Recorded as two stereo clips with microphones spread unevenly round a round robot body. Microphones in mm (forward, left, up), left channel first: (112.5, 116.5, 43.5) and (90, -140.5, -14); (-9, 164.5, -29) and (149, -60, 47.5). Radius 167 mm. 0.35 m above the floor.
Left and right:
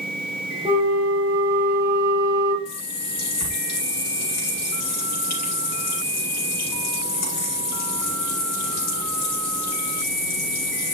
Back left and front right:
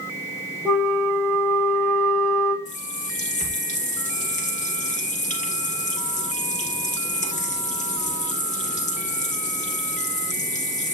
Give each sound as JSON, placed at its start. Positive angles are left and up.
{"t": 0.7, "sound": "a flute", "azimuth_deg": -165, "distance_m": 1.3}
{"t": 2.6, "sound": "a running tap", "azimuth_deg": 65, "distance_m": 4.5}